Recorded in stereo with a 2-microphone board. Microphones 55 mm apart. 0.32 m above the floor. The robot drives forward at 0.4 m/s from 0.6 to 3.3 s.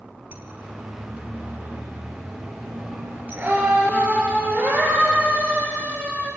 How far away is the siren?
About 3.5 m.